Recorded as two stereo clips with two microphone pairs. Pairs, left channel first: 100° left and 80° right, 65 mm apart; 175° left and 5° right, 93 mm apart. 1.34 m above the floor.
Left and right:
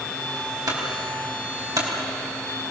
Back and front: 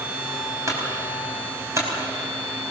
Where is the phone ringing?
I don't hear a phone ringing.